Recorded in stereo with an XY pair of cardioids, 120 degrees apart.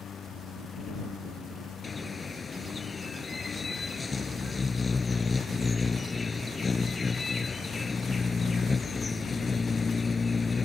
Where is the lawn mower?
40° left.